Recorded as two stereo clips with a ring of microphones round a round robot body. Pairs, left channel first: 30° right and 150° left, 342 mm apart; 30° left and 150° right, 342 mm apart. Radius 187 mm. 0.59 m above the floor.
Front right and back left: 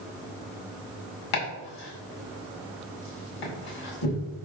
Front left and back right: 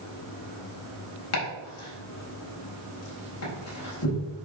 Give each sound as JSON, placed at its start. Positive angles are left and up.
{"t": 1.3, "sound": "chopping", "azimuth_deg": -15, "distance_m": 4.5}